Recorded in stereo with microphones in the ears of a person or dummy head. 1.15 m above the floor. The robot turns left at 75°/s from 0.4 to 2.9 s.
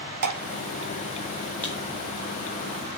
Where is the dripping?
55° right (ahead or behind), 1.1 m.